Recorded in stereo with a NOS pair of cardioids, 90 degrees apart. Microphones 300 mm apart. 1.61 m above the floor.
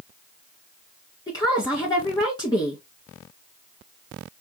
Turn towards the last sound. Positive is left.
turn(degrees=15)